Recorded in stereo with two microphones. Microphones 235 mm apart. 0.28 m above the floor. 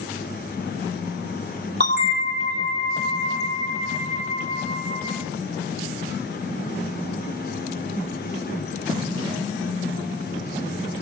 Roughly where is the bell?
Right.